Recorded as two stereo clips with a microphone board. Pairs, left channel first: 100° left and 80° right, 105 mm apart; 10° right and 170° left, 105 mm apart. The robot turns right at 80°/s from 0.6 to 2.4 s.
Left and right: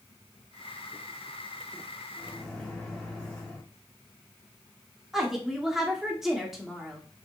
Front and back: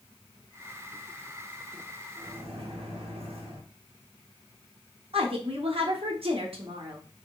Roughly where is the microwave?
Behind.